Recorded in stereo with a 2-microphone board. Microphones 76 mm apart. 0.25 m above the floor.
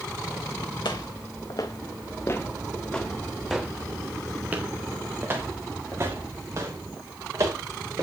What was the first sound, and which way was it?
Footsteps, 75° left (ahead or behind).